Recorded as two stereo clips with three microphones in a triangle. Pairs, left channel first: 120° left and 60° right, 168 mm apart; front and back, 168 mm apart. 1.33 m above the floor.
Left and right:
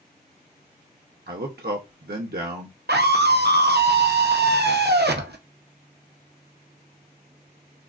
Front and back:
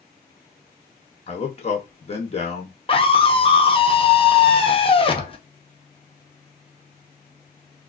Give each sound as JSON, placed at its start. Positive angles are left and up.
{"t": 1.3, "sound": "a man speaking", "azimuth_deg": -50, "distance_m": 0.7}
{"t": 2.9, "sound": "a scream", "azimuth_deg": -55, "distance_m": 0.7}